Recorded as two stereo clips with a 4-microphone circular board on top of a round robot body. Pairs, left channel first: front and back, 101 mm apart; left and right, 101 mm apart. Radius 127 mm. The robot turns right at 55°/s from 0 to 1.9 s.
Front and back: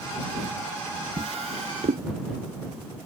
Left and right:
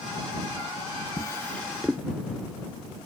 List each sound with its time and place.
1.2 s a drawer: 145° left; by 2.0 s 175° right